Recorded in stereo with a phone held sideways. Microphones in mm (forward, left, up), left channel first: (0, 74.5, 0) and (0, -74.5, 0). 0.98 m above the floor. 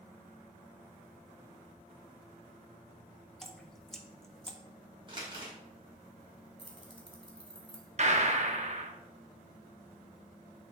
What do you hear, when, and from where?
3.4 s dripping: 5° left (ahead or behind), 0.6 m
5.1 s crumpling: 35° right (ahead or behind), 1.9 m
6.6 s keys jangling: 35° left (ahead or behind), 1.5 m
8.0 s a gunshot: 50° right (ahead or behind), 0.7 m